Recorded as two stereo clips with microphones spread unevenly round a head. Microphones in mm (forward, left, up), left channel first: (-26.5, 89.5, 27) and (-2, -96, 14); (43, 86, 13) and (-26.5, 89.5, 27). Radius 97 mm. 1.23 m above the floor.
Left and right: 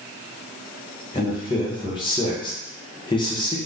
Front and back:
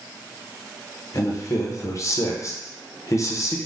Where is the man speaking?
30° left, 0.8 m.